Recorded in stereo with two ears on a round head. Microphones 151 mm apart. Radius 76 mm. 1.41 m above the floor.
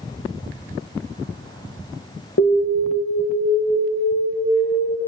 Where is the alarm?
75° left (ahead or behind), 2 m.